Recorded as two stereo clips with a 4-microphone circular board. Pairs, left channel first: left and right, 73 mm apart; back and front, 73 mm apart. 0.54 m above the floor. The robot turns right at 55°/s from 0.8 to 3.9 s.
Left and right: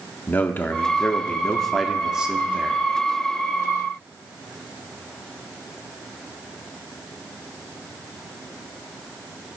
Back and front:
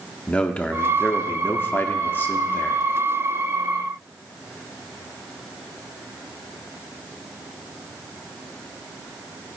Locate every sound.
0.3 s a man speaking: 125° left, 0.7 m; by 2.8 s 125° right, 0.7 m